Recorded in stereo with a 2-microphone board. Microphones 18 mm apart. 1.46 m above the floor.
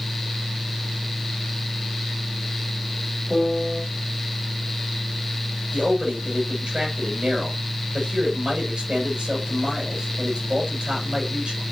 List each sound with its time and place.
3.3 s a piano: 40° right (ahead or behind), 8.5 m
5.7 s a man speaking: 75° right (ahead or behind), 7 m